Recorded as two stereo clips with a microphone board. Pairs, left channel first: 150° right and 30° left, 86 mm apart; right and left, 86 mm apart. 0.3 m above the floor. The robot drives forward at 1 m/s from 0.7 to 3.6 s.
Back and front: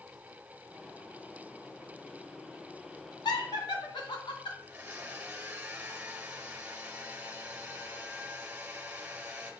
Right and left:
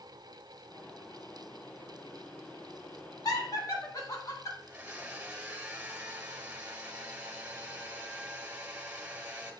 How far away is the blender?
About 1.5 m.